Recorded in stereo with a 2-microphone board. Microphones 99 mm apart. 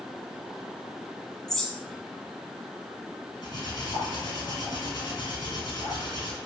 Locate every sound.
1.5 s a bird: 5° left (ahead or behind), 1.9 m
3.4 s cutlery clinking: 45° left (ahead or behind), 3.5 m